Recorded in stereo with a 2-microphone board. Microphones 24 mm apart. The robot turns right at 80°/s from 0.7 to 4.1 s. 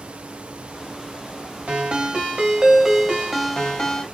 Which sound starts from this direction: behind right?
A ringtone, at 1.7 s.